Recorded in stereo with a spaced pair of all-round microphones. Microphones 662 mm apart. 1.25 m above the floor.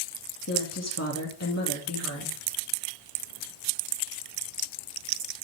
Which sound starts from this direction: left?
A woman speaking, at 0.5 s.